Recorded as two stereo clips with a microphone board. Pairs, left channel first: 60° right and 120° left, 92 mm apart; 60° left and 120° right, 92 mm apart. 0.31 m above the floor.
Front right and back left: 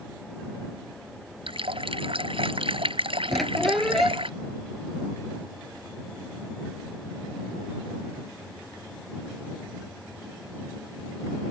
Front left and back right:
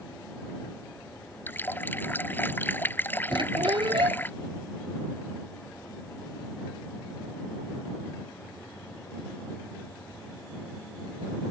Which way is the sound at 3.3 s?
150° right.